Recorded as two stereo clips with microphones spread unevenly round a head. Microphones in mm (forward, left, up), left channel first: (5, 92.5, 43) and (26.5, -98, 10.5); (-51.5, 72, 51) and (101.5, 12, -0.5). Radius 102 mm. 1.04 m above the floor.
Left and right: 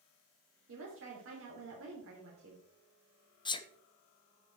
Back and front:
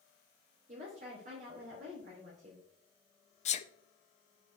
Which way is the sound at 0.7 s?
70° right.